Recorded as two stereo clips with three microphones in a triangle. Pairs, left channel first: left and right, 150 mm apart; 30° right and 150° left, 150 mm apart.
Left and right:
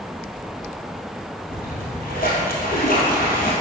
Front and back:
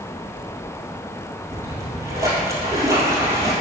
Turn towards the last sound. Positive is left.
turn(degrees=80)